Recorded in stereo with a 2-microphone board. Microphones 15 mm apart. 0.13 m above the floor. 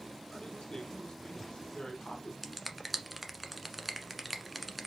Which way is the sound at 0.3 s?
70° left (ahead or behind).